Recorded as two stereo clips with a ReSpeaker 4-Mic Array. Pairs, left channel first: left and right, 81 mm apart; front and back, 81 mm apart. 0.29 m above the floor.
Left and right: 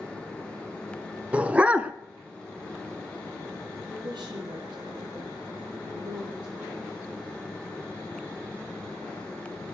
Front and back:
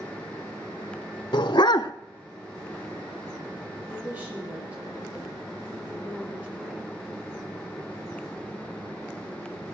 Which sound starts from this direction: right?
A woman speaking, at 3.9 s.